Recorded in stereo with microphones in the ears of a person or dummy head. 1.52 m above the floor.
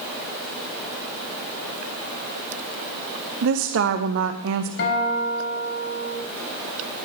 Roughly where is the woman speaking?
Right.